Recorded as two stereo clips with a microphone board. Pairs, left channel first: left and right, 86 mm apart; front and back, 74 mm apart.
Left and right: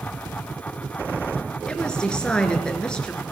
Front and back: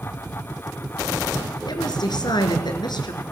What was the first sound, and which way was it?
A woman speaking, 10° left.